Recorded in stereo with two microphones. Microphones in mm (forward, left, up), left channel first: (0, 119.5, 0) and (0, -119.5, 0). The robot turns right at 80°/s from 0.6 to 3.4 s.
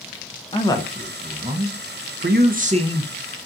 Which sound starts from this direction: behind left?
A man speaking, at 0.5 s.